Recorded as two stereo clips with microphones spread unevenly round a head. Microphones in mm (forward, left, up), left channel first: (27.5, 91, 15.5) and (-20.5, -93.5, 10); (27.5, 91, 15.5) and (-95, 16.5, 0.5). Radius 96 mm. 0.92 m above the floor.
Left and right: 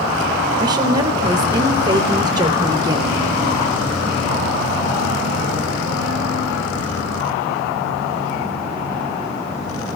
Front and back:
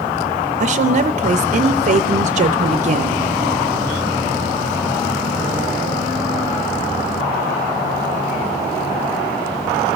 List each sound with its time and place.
0.6 s a woman speaking: 170° right, 0.5 m